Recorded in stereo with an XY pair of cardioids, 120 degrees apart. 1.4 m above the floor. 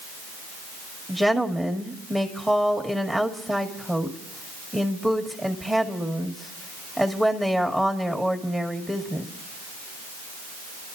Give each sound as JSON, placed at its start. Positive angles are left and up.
{"t": 1.1, "sound": "a woman speaking", "azimuth_deg": -10, "distance_m": 1.9}